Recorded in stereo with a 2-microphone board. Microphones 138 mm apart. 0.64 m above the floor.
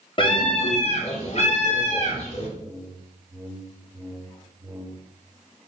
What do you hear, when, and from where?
0.2 s a scream: 35° left (ahead or behind), 1.0 m; by 2.5 s 45° left (ahead or behind), 1.8 m
2.6 s a whoosh: 15° right (ahead or behind), 0.6 m